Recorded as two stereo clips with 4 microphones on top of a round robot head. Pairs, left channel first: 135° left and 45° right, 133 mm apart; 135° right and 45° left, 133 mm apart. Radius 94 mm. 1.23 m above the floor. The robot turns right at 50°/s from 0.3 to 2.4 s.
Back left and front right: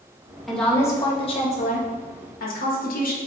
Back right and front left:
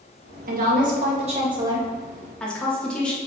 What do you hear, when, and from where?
0.5 s a woman speaking: 45° left, 1.6 m; by 3.2 s 140° left, 1.6 m